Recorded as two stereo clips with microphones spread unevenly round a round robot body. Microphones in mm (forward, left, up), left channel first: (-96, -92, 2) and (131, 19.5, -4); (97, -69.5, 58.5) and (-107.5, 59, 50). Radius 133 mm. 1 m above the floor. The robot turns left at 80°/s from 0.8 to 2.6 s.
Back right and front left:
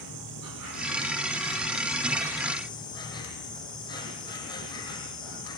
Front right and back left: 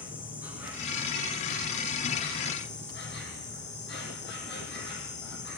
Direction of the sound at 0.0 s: 65° left.